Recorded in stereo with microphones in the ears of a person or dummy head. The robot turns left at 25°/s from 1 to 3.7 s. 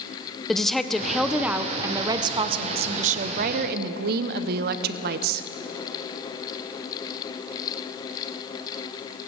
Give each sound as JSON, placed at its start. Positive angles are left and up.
{"t": 0.5, "sound": "a woman speaking", "azimuth_deg": 5, "distance_m": 0.6}